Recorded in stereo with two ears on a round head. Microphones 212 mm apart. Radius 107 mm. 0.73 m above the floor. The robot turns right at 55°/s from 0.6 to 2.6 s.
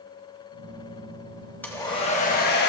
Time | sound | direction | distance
1.6 | a hair dryer | 10° left | 1.0 m